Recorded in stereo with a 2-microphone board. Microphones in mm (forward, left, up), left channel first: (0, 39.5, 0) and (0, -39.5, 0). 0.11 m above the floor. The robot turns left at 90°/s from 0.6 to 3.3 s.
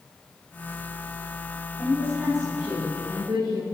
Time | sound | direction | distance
1.8 | a woman speaking | 50° left | 6.5 m